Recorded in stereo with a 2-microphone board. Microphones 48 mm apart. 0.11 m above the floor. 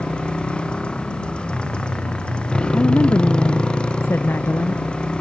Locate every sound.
0.0 s a motorcycle: 20° left (ahead or behind)
2.7 s a woman speaking: 50° left (ahead or behind)